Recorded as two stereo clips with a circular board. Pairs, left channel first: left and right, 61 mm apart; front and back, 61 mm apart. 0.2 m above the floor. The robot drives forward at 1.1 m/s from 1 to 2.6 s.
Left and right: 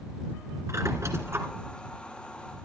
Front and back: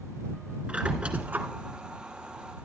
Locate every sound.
0.7 s a squeak: 110° right, 1.7 m; by 1.5 s 125° right, 1.9 m